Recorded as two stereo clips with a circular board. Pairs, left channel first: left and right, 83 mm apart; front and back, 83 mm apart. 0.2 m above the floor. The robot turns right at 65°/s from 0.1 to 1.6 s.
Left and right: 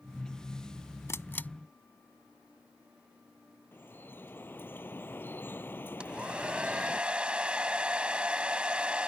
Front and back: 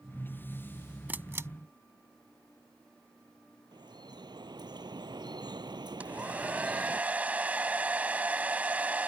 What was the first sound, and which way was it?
A camera shutter, 120° left.